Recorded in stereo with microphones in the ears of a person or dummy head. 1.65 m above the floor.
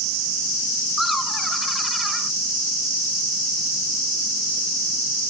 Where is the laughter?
Centre (ahead or behind).